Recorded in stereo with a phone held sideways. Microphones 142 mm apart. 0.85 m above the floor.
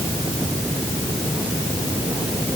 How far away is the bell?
No bell in this recording.